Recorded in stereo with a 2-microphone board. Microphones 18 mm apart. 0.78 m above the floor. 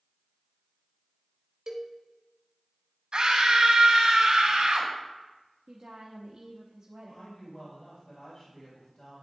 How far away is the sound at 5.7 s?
About 0.8 m.